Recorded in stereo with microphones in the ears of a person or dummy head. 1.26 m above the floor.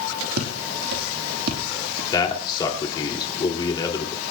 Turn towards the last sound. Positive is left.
turn(degrees=25)  # may be behind; listen again after turning